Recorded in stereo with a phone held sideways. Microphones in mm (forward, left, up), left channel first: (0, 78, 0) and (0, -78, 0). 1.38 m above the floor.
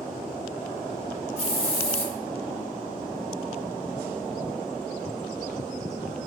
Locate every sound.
1.4 s a hiss: 40° left (ahead or behind), 0.7 m